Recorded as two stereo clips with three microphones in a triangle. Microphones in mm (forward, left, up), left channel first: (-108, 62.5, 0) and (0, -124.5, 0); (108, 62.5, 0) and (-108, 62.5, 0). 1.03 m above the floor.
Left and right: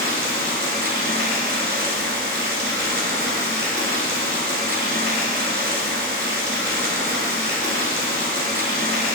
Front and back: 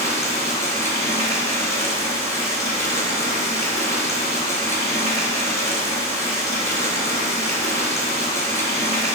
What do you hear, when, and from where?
0.0 s running water: 70° right, 1.4 m